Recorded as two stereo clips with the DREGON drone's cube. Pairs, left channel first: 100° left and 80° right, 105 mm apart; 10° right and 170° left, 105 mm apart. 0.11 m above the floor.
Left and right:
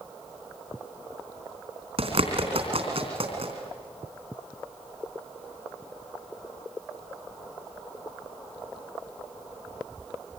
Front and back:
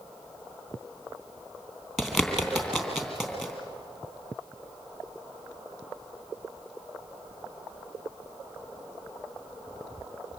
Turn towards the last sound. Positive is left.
turn(degrees=-105)